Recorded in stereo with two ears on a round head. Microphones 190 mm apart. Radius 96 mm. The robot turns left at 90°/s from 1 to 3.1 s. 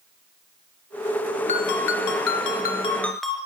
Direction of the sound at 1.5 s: 145° left.